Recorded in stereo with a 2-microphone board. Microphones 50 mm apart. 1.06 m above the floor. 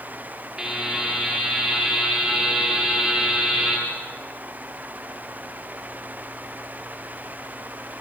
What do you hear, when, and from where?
0.6 s a buzzer: 10° right (ahead or behind), 7.5 m